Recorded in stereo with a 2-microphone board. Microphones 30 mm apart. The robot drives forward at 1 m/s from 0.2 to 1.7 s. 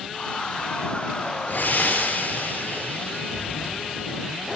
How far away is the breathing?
About 3 m.